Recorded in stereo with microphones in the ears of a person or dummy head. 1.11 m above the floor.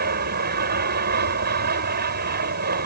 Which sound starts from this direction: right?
An aircraft, at 0.0 s.